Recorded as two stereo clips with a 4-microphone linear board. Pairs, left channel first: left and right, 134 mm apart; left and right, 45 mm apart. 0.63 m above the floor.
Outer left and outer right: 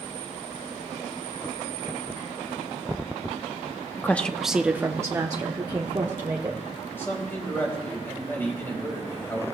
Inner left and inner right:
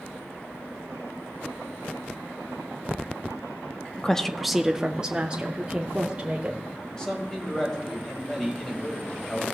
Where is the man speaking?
15° left (ahead or behind), 4 m.